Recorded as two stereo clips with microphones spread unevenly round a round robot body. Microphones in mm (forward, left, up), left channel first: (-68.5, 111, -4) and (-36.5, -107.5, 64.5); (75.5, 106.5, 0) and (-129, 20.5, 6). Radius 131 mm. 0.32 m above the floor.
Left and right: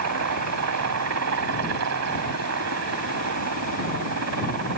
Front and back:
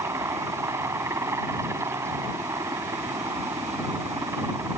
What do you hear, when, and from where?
0.0 s a helicopter: 80° right